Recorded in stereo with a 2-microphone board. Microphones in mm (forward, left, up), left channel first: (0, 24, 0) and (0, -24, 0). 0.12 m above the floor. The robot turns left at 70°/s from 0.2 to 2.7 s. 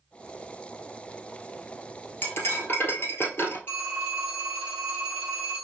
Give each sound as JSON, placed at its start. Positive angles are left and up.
{"t": 2.2, "sound": "cutlery clinking", "azimuth_deg": 120, "distance_m": 1.3}
{"t": 3.7, "sound": "a phone ringing", "side_deg": 50, "distance_m": 2.0}